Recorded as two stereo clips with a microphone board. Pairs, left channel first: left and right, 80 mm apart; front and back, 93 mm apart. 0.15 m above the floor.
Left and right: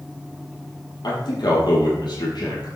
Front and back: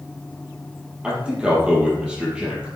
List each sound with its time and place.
1.0 s a man speaking: 100° left, 4.5 m